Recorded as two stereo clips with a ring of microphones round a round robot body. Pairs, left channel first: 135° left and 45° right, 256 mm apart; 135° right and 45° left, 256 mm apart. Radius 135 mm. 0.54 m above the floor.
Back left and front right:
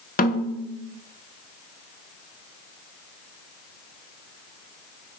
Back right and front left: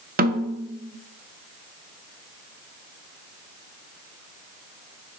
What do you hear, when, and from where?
0.2 s a snare drum: 90° left, 0.9 m